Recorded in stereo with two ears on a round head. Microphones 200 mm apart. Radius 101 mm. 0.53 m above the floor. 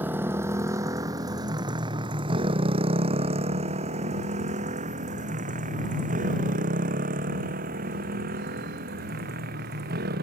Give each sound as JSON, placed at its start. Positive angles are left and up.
{"t": 0.0, "sound": "a motorcycle", "side_deg": -10}